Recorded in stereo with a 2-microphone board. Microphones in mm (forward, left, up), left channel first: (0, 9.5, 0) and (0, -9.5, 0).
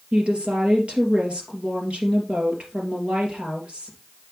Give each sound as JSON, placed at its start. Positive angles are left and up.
{"t": 0.1, "sound": "a woman speaking", "side_deg": -65, "distance_m": 3.0}